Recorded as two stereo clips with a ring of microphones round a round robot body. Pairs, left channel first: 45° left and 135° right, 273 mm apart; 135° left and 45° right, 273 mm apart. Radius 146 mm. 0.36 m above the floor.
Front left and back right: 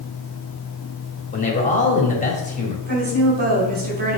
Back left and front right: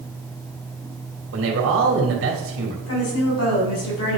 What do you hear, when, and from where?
1.3 s a man speaking: 15° right, 2 m
2.9 s a woman speaking: 170° left, 3 m